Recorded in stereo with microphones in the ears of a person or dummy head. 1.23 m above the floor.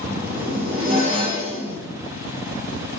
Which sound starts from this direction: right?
A zipper, at 0.1 s.